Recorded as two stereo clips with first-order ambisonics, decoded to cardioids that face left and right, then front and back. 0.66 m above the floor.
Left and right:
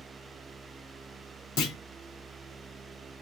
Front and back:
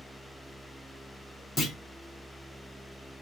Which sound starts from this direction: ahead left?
A clunk, at 1.6 s.